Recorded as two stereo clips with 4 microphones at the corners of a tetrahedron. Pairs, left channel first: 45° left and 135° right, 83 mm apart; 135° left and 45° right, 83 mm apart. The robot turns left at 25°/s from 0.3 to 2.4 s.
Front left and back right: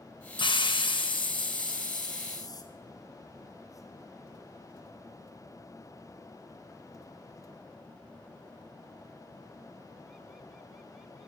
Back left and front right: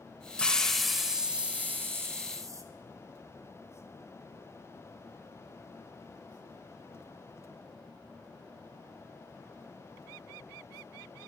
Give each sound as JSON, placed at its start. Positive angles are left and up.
{"t": 0.4, "sound": "a hiss", "azimuth_deg": 55, "distance_m": 0.6}